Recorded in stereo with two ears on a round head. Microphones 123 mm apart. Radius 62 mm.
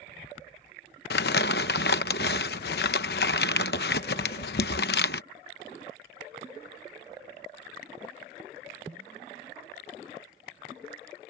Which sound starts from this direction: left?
Crumpling, at 1.1 s.